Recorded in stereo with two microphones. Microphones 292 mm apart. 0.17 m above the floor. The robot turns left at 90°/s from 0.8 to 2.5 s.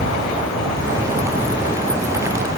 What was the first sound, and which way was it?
An insect, 105° left.